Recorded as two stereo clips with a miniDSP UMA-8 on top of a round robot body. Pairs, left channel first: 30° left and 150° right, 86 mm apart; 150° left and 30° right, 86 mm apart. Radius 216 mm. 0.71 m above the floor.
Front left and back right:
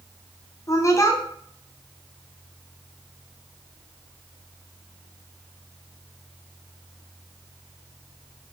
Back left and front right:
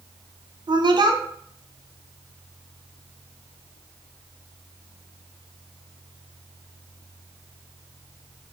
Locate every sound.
0.7 s a woman speaking: 15° right, 0.8 m